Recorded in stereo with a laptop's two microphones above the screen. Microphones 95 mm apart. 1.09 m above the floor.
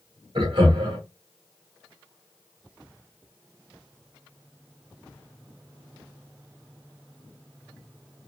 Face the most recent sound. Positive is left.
turn(degrees=-65)  # may be behind; listen again after turning